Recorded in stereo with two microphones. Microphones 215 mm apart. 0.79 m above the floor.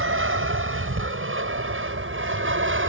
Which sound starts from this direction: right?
An aircraft, at 0.0 s.